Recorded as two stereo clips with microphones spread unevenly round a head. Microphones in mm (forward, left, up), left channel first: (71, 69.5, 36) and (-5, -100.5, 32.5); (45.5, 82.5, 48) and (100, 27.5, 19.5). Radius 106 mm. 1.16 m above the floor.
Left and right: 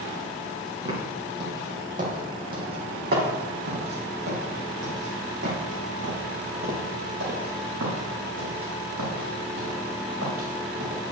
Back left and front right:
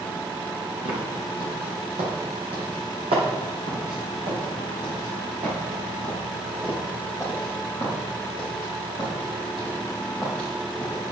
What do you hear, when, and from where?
0.8 s footsteps: 55° right, 4 m; by 11.0 s 115° right, 7 m